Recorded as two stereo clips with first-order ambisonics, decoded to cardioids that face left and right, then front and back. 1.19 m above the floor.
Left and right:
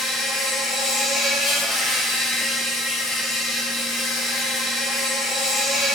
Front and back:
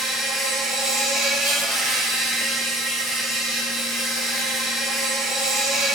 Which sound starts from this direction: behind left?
An insect, at 0.0 s.